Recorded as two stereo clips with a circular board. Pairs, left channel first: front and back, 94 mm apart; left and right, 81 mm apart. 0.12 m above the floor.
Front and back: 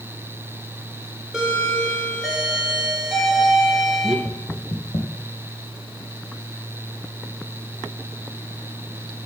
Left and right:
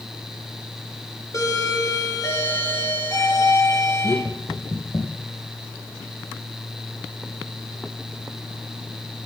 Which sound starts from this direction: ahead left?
Knocking, at 4.2 s.